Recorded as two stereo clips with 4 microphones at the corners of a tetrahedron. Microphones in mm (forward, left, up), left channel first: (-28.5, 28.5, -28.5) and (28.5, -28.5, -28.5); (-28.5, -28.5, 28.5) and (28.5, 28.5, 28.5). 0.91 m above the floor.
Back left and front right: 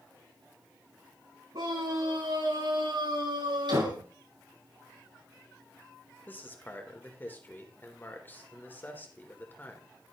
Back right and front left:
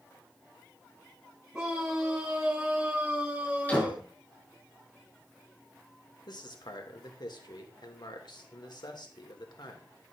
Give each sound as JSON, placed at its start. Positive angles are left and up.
{"t": 1.5, "sound": "a scream", "azimuth_deg": -30, "distance_m": 6.0}
{"t": 3.7, "sound": "a door slam", "azimuth_deg": -65, "distance_m": 7.5}
{"t": 6.3, "sound": "a man speaking", "azimuth_deg": -160, "distance_m": 3.0}